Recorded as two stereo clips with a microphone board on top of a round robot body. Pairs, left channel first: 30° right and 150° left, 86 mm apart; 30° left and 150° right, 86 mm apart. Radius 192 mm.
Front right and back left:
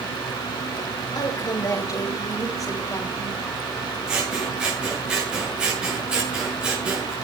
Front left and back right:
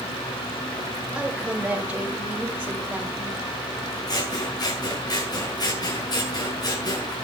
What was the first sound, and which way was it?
A woman speaking, 75° right.